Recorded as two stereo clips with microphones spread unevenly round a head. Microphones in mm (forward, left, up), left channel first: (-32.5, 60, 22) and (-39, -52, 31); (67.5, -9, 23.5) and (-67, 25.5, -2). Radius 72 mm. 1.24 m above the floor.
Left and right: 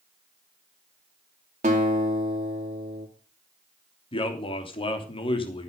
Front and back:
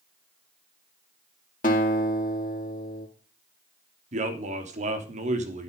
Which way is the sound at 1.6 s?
55° right.